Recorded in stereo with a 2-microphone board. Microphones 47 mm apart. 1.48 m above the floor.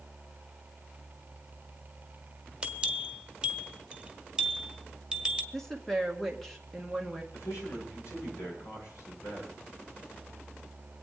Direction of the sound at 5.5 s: 5° left (ahead or behind).